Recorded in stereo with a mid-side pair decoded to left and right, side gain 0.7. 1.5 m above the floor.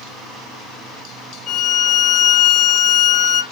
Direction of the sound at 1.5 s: 40° left.